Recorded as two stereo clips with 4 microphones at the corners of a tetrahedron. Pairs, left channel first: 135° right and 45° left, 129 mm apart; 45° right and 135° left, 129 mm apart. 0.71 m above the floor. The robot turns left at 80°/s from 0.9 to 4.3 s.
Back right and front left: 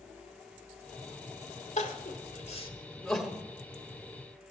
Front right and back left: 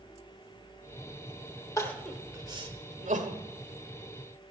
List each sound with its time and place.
1.8 s crying: 115° right, 1.2 m; by 3.4 s 120° left, 1.2 m